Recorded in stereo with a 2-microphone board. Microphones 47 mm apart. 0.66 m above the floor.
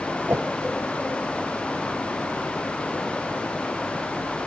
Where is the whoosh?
55° right (ahead or behind), 1.7 m.